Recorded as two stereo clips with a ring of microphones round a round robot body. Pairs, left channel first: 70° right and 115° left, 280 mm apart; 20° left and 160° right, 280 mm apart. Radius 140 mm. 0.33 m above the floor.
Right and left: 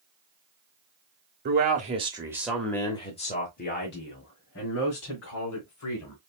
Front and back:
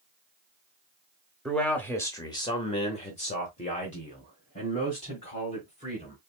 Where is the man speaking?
110° left, 1.0 m; by 6.2 s 40° right, 2 m.